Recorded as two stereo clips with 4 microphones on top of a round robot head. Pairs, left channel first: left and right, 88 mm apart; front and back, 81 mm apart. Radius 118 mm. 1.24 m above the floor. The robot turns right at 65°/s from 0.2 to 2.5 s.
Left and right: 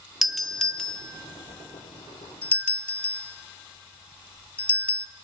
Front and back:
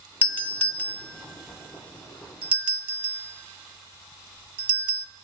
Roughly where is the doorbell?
Ahead.